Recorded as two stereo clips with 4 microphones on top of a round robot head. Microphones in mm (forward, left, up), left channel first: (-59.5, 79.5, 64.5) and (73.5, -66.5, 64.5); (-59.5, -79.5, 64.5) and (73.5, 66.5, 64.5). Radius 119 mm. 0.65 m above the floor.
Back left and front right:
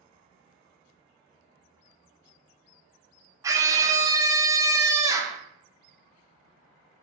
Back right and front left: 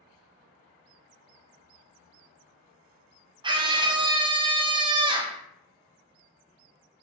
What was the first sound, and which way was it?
A scream, 10° left.